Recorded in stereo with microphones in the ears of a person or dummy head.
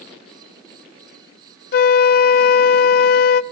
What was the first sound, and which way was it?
A flute, 60° left (ahead or behind).